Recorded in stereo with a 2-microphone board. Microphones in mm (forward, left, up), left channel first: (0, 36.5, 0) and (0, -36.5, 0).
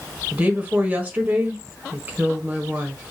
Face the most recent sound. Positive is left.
turn(degrees=-25)  # may be behind; listen again after turning